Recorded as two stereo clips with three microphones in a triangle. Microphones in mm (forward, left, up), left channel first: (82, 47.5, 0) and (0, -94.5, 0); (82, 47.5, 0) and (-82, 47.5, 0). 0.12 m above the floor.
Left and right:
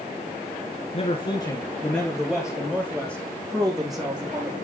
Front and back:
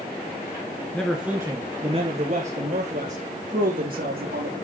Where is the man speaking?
80° left, 1.4 m; by 4.5 s 175° left, 4 m.